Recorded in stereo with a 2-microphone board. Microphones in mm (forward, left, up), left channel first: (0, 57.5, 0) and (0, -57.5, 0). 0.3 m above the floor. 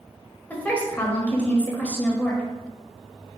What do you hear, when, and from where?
0.5 s a woman speaking: 15° left (ahead or behind), 1.0 m